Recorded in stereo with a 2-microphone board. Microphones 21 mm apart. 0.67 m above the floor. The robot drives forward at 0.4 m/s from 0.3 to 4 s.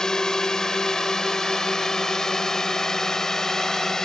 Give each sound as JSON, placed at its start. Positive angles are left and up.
{"t": 0.0, "sound": "a drone", "side_deg": 30}